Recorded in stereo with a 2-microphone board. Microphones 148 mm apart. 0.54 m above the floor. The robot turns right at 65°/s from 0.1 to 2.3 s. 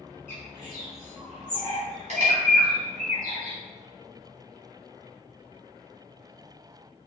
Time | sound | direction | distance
0.3 | a bird | 65° left (ahead or behind) | 1.4 m